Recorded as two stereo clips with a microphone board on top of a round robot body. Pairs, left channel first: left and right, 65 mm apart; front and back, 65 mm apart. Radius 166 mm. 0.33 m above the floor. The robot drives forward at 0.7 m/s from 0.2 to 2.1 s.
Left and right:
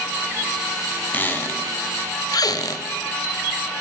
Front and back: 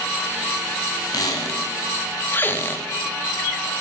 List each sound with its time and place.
1.1 s a squeak: 25° left, 1.0 m; by 2.9 s 60° left, 0.5 m